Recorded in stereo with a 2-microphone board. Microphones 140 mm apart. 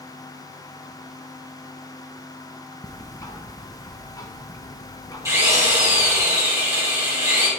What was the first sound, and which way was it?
Ticking, 25° left (ahead or behind).